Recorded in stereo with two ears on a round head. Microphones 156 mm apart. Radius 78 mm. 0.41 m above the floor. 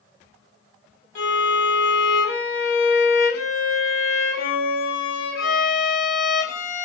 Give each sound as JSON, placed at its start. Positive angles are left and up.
{"t": 1.1, "sound": "a violin", "side_deg": 65, "distance_m": 1.0}